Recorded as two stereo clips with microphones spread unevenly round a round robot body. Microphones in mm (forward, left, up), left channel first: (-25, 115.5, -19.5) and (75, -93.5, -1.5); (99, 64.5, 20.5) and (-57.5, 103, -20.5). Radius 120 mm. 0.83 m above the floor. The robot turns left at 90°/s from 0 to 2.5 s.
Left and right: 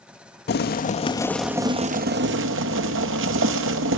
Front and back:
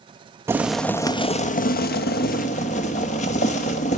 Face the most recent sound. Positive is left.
turn(degrees=-70)